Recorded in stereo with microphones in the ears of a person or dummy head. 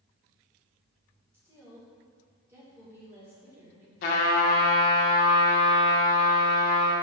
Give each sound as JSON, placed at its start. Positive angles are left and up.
{"t": 1.3, "sound": "a woman speaking", "side_deg": -15, "distance_m": 1.8}
{"t": 4.0, "sound": "a trumpet", "side_deg": 50, "distance_m": 0.7}